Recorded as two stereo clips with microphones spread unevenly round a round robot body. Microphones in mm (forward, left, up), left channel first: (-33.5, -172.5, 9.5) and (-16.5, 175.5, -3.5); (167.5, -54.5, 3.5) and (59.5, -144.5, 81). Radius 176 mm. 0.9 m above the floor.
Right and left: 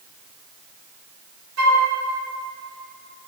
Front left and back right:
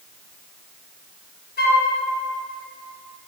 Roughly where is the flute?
Ahead left.